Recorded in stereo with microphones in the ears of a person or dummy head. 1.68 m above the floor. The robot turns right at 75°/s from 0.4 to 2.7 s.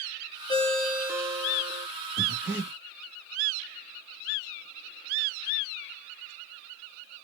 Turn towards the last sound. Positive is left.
turn(degrees=0)  # may be behind; listen again after turning